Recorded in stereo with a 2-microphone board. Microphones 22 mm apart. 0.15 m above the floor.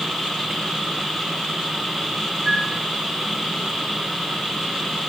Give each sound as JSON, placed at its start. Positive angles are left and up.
{"t": 2.5, "sound": "a flute", "side_deg": -70, "distance_m": 7.0}